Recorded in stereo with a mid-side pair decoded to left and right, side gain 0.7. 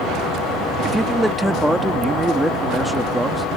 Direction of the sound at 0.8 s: 5° right.